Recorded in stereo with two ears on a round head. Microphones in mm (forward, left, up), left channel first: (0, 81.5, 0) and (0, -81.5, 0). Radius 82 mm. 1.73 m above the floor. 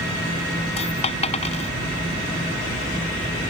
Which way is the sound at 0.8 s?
35° left (ahead or behind).